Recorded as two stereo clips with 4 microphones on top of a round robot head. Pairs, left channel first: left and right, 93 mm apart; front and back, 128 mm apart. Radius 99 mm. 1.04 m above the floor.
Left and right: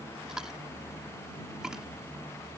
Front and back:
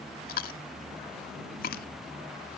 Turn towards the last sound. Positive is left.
turn(degrees=-5)